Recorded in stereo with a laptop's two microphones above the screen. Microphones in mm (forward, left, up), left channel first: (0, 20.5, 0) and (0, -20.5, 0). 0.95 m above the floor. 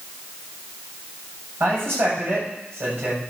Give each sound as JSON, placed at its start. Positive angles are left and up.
{"t": 1.6, "sound": "a man speaking", "side_deg": -60, "distance_m": 6.5}